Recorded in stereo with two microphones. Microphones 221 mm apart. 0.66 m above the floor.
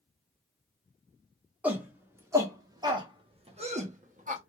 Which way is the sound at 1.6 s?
5° right (ahead or behind).